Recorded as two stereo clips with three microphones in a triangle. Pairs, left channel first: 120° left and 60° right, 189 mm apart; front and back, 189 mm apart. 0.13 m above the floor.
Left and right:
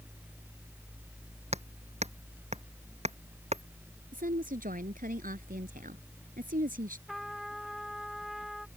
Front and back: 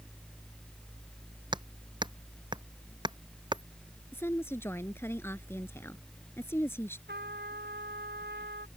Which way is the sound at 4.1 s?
75° right.